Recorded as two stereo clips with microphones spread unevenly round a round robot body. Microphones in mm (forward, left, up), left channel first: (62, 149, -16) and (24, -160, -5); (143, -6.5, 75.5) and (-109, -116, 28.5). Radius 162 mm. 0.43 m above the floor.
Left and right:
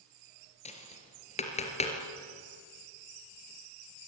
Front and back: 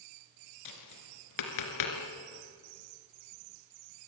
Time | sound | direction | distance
0.7 | tapping | 15° left | 3 m